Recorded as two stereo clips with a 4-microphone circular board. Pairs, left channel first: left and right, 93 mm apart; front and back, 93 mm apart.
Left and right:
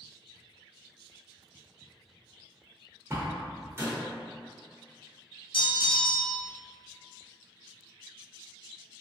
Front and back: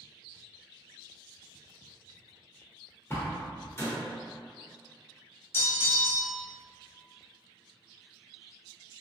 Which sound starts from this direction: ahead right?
A door slam, at 3.1 s.